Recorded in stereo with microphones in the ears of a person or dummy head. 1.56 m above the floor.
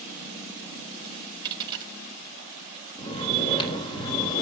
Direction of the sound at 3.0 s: 30° left (ahead or behind).